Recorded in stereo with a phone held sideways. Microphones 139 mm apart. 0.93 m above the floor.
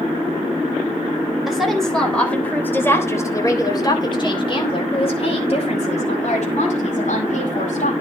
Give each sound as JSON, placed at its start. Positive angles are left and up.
{"t": 1.5, "sound": "a woman speaking", "side_deg": 0, "distance_m": 4.0}